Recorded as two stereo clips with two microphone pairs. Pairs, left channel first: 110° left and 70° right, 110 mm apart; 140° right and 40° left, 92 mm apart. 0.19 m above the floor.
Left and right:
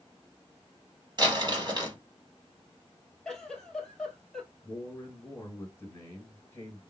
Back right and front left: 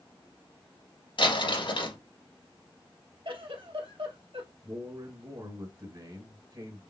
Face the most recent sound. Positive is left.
turn(degrees=45)